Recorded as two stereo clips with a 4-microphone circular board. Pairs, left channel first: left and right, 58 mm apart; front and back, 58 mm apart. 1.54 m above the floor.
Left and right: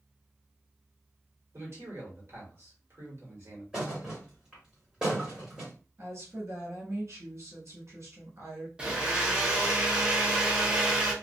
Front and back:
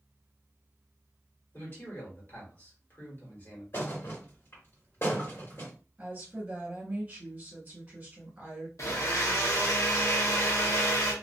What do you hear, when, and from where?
1.5 s a man speaking: 45° right, 1.5 m
3.7 s a thud: 20° right, 1.6 m
6.0 s a woman speaking: 120° right, 1.5 m
8.8 s a blender: 20° right, 0.7 m